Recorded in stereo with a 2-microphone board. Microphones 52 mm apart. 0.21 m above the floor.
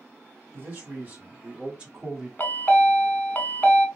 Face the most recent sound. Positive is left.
turn(degrees=35)  # may be behind; listen again after turning